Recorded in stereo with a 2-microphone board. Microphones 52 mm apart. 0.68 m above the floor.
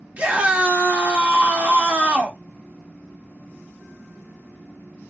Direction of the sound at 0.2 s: 25° right (ahead or behind).